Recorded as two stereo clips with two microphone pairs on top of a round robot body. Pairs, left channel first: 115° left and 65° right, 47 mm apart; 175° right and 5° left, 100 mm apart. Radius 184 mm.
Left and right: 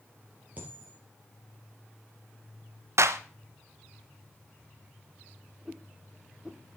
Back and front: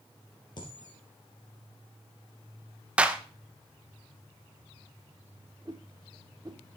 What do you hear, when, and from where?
0.6 s a dropped coin: 130° right, 3 m
3.0 s a clap: 75° right, 1.1 m
5.7 s a whoosh: 15° left, 0.6 m